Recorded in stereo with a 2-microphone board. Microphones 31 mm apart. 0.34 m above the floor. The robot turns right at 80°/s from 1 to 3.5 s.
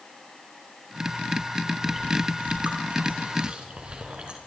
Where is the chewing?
10° right (ahead or behind), 5 m; by 4.4 s 40° right (ahead or behind), 5 m.